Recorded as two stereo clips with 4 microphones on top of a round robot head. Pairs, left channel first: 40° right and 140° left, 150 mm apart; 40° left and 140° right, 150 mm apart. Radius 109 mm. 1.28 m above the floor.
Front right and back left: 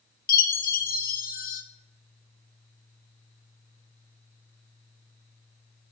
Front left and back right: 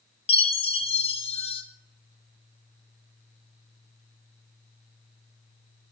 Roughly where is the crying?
I don't hear crying.